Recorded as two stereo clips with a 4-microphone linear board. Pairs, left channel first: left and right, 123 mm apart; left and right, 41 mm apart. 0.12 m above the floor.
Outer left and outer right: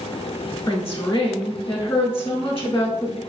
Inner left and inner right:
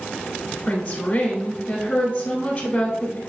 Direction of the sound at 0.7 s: 25° left (ahead or behind).